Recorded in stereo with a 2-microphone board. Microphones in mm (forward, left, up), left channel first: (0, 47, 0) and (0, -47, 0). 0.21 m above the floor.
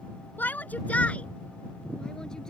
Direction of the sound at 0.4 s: 20° left (ahead or behind).